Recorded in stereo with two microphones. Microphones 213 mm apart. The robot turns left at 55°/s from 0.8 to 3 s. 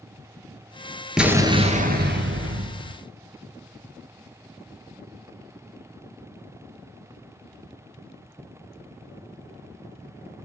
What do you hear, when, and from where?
1.2 s an explosion: straight ahead, 0.8 m; by 3.0 s 100° right, 0.8 m